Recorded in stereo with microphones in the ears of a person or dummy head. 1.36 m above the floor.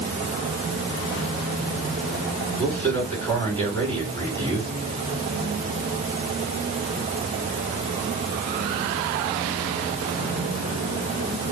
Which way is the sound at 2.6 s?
15° left (ahead or behind).